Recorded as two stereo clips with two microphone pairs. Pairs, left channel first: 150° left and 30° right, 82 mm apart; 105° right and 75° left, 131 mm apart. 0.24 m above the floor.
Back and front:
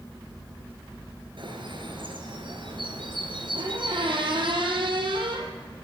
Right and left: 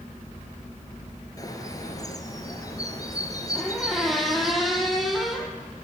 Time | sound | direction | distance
1.4 | a bird | 40° right | 4.5 m
3.5 | a squeak | 15° right | 5.5 m